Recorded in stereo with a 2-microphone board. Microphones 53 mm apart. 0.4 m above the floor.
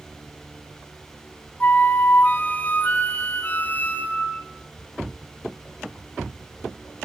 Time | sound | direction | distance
1.6 | a flute | 35° left (ahead or behind) | 2.5 m